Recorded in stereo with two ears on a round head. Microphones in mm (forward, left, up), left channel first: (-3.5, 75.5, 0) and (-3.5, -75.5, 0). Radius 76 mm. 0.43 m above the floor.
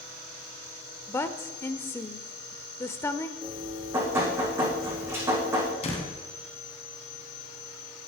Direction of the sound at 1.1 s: 15° left (ahead or behind).